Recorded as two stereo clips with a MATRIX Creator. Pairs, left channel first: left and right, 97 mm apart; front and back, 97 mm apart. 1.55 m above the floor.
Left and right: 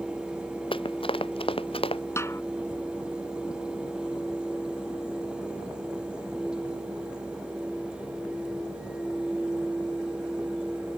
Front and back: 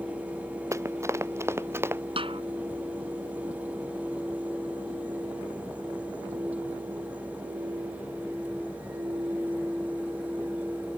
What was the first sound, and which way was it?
Running footsteps, 120° left.